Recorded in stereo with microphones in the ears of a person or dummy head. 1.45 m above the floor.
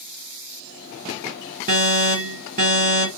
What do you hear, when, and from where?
1.7 s an alarm: 40° right (ahead or behind), 1.2 m